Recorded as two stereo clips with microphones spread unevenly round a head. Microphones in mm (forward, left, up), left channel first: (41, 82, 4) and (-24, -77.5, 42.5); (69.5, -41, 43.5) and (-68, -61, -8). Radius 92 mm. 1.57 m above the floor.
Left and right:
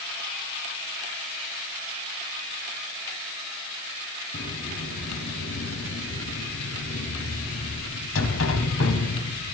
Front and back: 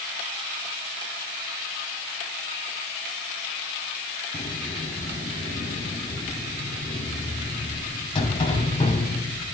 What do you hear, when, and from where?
4.3 s a sliding door: 55° left, 3 m